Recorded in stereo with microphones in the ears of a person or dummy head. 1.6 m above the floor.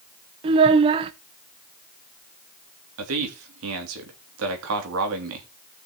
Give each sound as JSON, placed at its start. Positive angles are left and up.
{"t": 0.4, "sound": "a child speaking", "side_deg": -35, "distance_m": 0.8}
{"t": 3.0, "sound": "a man speaking", "side_deg": -80, "distance_m": 2.5}